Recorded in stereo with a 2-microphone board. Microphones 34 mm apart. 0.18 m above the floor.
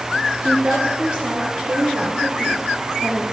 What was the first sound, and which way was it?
A woman speaking, 20° right (ahead or behind).